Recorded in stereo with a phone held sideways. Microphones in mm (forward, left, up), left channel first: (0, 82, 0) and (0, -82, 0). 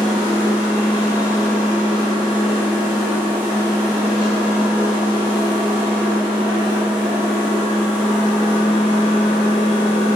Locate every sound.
0.0 s a machine running: 5° right (ahead or behind), 1.6 m